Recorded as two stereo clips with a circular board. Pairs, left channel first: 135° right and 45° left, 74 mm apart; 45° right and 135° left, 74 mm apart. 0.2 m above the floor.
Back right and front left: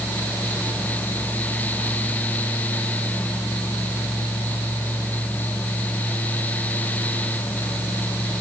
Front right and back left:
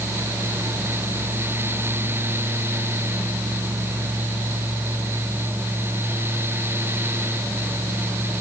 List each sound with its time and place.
Only background noise.